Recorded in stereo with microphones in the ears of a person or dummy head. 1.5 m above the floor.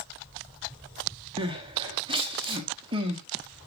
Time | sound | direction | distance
1.4 | crying | 25° right (ahead or behind) | 1.2 m